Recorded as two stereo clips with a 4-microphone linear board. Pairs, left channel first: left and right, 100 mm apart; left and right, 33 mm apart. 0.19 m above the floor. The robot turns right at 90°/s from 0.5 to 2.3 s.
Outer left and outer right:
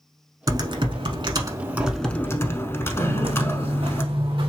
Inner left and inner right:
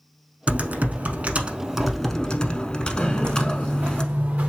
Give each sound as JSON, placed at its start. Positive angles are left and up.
{"t": 0.5, "sound": "typing on a keyboard", "azimuth_deg": -130, "distance_m": 0.7}
{"t": 3.0, "sound": "footsteps", "side_deg": -70, "distance_m": 0.7}